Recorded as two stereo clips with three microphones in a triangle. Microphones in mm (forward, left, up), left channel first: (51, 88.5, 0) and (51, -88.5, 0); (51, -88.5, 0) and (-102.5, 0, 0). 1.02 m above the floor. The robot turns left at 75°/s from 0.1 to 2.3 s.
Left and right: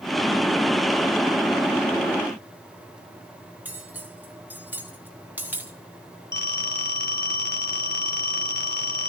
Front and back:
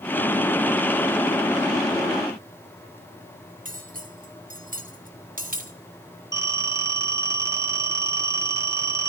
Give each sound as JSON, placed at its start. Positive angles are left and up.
{"t": 3.6, "sound": "cutlery clinking", "azimuth_deg": -170, "distance_m": 1.6}
{"t": 6.3, "sound": "a phone ringing", "azimuth_deg": 80, "distance_m": 2.0}